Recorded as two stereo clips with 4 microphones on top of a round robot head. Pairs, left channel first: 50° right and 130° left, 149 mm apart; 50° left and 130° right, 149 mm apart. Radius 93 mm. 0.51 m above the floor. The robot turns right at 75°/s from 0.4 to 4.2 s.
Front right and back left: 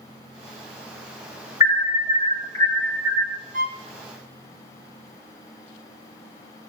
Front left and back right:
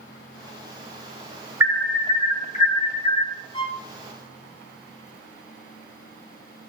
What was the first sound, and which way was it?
An alarm, 55° right.